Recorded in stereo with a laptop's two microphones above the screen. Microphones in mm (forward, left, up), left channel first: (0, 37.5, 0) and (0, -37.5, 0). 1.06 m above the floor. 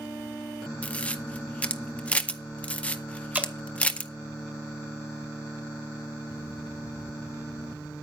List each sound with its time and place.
0.8 s a camera shutter: 15° left (ahead or behind), 0.6 m
3.3 s dripping: 20° right (ahead or behind), 1.5 m